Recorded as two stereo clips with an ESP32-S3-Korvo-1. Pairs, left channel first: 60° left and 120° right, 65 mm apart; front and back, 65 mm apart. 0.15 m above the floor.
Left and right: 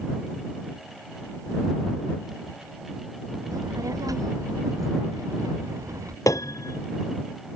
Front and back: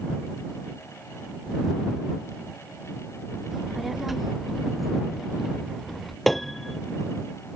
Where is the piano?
85° left.